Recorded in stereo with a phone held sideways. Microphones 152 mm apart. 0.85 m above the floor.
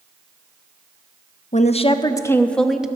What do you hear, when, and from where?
1.5 s a woman speaking: 50° left (ahead or behind), 0.6 m; by 2.9 s 5° right (ahead or behind), 0.8 m